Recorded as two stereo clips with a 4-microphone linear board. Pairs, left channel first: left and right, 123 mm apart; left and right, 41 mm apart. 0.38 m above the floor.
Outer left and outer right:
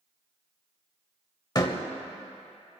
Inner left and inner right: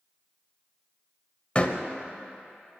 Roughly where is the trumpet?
I don't hear a trumpet.